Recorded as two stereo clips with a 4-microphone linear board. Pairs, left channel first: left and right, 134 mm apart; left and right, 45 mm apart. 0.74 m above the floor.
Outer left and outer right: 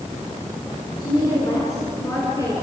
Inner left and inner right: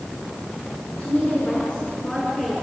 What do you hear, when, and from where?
1.0 s a woman speaking: 30° left (ahead or behind), 8 m; by 2.5 s 20° left (ahead or behind), 9 m